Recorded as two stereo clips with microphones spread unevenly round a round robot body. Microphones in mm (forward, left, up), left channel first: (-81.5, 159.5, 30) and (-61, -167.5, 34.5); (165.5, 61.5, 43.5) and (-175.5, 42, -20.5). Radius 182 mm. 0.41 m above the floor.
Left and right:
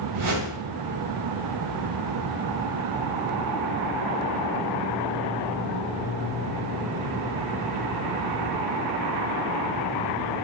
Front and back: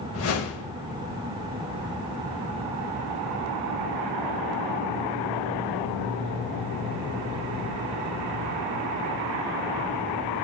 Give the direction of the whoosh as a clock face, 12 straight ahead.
2 o'clock.